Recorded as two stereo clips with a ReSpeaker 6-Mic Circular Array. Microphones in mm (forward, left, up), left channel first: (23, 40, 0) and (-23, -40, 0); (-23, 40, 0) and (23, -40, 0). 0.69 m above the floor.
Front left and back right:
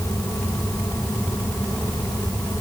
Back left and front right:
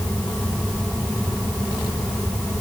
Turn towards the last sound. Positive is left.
No sound to turn to.